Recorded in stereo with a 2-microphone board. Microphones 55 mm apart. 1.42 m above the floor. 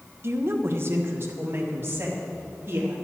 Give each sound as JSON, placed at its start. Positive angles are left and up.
{"t": 0.2, "sound": "a woman speaking", "side_deg": -50, "distance_m": 0.9}